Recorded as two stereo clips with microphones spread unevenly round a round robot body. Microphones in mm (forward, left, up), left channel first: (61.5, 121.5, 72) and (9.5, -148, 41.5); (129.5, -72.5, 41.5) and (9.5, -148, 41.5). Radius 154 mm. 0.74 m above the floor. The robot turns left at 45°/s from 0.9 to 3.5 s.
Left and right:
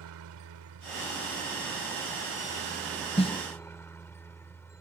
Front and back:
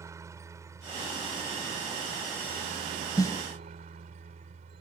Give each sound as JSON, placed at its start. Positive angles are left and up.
{"t": 0.0, "sound": "a helicopter", "azimuth_deg": -80}
{"t": 3.2, "sound": "a snare drum", "azimuth_deg": 25}